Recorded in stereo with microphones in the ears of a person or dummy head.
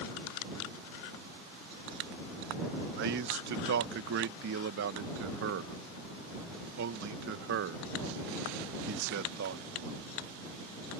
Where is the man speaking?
65° right (ahead or behind).